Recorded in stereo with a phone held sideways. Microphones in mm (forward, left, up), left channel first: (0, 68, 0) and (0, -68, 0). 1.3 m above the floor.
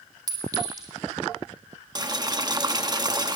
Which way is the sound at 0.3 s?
30° right (ahead or behind).